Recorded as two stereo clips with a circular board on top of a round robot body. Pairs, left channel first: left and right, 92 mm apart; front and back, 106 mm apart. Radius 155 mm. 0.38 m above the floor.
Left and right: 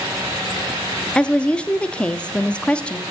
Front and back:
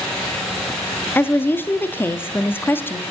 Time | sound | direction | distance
1.1 | a woman speaking | 30° left | 0.8 m